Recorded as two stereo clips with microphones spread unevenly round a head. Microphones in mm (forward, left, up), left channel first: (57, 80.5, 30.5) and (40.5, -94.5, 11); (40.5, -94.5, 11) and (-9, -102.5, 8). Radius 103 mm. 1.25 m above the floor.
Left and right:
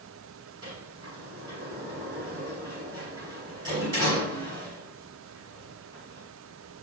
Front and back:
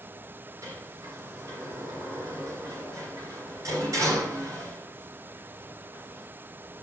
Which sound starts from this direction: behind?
A sliding door, at 0.6 s.